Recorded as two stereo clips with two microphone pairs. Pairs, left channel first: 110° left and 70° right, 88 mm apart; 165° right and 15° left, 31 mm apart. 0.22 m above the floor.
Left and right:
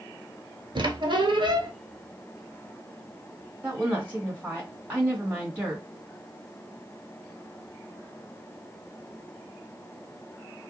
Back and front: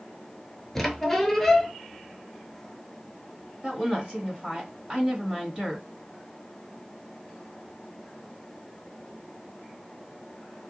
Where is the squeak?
85° right, 0.5 m.